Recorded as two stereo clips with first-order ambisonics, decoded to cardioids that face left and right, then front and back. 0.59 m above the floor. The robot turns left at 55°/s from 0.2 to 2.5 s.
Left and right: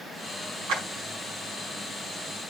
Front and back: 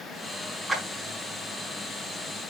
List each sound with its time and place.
0.7 s a clap: 80° right, 5 m; by 0.8 s 90° right, 5 m